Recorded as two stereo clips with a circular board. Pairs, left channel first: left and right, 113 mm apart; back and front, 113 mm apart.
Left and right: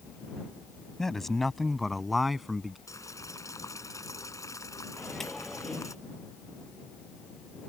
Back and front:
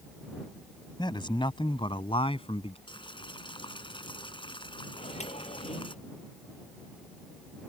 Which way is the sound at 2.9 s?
145° left.